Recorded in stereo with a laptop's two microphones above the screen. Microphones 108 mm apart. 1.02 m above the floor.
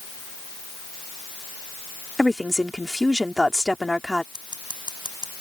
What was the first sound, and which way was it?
A woman speaking, 5° right (ahead or behind).